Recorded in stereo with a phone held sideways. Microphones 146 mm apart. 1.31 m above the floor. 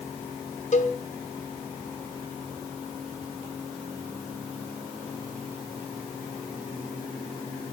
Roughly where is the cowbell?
Left.